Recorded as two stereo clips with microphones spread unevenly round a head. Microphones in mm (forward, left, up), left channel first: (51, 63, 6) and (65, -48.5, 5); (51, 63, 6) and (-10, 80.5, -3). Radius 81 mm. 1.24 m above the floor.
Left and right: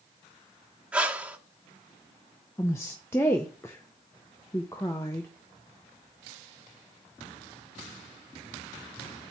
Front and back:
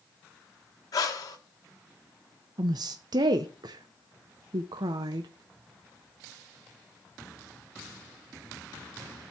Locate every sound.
0.9 s breathing: straight ahead, 1.3 m
2.6 s a woman speaking: 175° left, 0.5 m